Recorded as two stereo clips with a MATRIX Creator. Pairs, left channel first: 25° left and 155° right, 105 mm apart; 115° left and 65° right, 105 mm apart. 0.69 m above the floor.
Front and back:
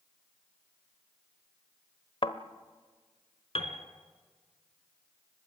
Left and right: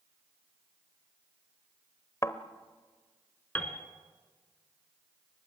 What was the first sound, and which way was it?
A thud, 50° left.